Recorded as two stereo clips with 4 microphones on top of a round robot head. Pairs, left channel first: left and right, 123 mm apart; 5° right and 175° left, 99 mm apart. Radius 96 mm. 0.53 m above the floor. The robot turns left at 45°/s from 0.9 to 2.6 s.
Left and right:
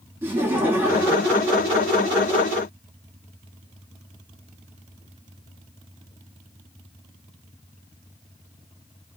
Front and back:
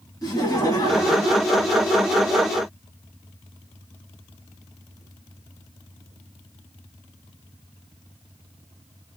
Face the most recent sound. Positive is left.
turn(degrees=-105)